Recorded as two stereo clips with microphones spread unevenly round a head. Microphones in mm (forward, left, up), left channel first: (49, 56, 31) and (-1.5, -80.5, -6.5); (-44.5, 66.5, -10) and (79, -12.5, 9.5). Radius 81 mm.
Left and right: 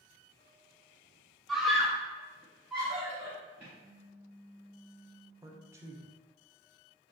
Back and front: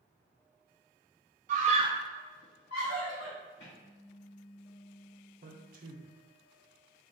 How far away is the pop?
About 0.9 m.